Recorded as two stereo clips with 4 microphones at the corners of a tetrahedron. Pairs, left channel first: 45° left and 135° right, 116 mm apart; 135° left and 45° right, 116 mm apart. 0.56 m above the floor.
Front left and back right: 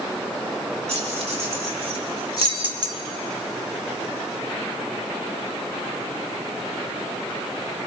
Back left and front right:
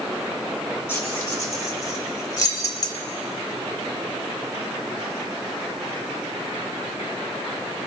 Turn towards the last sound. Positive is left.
turn(degrees=180)